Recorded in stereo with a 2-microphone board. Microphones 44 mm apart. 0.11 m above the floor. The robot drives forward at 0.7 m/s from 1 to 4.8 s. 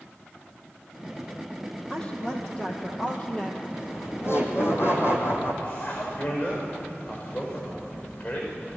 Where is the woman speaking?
25° left (ahead or behind), 4 m; by 3.7 s 35° left (ahead or behind), 3 m.